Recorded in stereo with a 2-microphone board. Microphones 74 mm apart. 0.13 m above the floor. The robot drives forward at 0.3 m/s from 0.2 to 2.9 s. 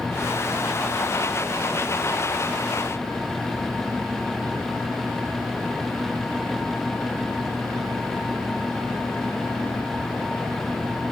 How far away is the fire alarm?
I don't hear a fire alarm.